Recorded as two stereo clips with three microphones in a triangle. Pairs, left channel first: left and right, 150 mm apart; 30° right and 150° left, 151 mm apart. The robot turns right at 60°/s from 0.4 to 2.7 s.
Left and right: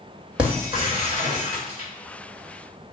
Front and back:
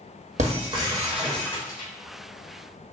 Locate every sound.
0.4 s breaking glass: 175° right, 1.1 m; by 1.9 s 85° right, 1.1 m